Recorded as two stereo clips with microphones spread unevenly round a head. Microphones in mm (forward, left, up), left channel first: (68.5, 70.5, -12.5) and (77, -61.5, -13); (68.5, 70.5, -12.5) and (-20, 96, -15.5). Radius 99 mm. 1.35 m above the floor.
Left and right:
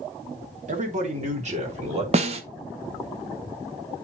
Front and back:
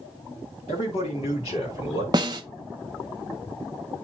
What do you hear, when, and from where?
0.7 s a man speaking: 60° right, 2.5 m; by 2.0 s 50° right, 3.5 m
2.1 s a snare drum: 135° right, 0.6 m